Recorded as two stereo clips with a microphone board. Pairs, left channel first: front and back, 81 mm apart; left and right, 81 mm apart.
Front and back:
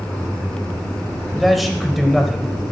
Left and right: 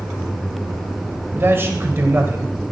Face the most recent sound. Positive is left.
turn(degrees=-90)